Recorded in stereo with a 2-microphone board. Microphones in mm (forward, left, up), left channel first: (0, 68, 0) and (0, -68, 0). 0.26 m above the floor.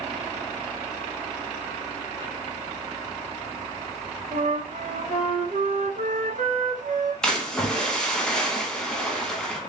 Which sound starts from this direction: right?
A flute, at 4.3 s.